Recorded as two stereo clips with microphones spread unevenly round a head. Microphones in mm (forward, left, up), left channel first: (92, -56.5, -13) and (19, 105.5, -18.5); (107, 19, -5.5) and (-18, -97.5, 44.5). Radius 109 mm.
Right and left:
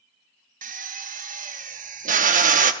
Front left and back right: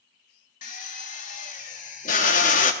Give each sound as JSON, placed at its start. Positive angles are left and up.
{"t": 0.6, "sound": "a drill", "azimuth_deg": 100, "distance_m": 0.7}